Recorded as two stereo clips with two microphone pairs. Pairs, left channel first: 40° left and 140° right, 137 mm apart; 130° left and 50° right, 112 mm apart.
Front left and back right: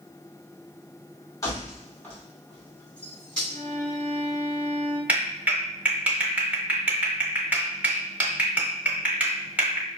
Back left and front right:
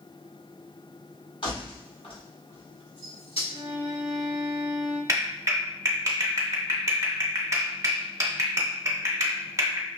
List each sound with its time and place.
1.4 s keys jangling: 105° left, 1.8 m; by 3.4 s 125° left, 3.5 m
3.5 s a violin: 5° right, 1.6 m
5.1 s a clap: 70° right, 1.0 m